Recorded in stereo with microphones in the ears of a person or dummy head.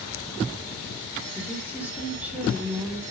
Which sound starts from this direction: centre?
A woman speaking, at 1.4 s.